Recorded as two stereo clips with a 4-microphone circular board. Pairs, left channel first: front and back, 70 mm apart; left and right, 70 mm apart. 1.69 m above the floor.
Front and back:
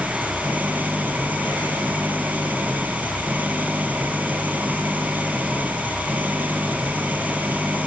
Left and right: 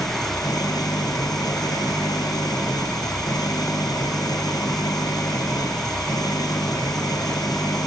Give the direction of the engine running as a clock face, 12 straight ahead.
8 o'clock.